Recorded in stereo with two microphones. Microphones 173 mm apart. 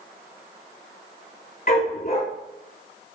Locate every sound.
1.7 s a dog barking: 55° left (ahead or behind), 2.5 m